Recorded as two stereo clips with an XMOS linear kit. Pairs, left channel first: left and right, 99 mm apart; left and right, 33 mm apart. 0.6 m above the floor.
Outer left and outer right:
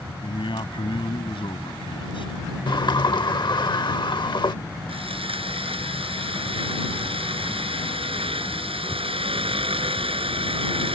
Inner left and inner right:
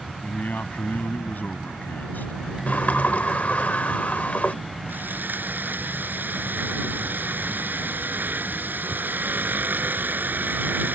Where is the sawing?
80° right.